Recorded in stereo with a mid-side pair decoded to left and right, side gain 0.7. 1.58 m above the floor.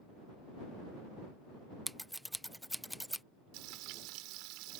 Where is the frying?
65° right.